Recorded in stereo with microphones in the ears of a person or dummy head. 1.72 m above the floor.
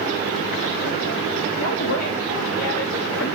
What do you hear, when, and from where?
1.6 s a woman speaking: 70° left (ahead or behind), 0.9 m